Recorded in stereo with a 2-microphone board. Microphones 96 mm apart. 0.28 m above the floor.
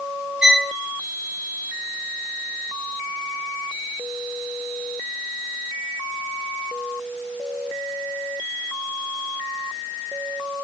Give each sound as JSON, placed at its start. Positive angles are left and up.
{"t": 0.4, "sound": "a violin", "side_deg": -10, "distance_m": 0.5}